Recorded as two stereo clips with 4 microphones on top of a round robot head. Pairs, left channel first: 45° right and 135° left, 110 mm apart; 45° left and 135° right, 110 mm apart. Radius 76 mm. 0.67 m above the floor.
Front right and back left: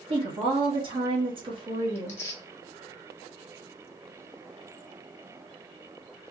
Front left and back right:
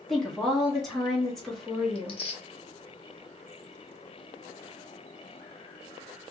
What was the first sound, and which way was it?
A woman speaking, 135° left.